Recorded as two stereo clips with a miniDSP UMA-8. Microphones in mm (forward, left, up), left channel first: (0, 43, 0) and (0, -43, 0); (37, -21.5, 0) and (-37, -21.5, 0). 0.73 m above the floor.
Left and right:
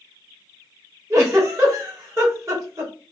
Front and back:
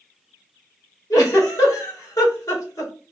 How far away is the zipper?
I don't hear a zipper.